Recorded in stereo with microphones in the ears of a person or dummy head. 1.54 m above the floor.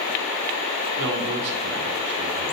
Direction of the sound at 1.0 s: 55° right (ahead or behind).